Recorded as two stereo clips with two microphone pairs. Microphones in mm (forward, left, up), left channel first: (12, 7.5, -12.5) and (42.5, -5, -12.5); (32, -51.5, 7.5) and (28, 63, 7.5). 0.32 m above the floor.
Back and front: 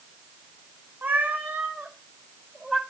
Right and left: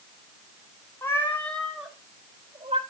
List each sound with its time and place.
1.0 s a cat meowing: 20° right, 2 m; by 2.8 s 65° left, 1.3 m